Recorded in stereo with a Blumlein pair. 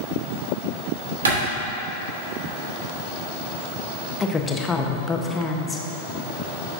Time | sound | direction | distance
1.2 | a clap | 70° right | 2.5 m
4.2 | a woman speaking | 15° left | 0.9 m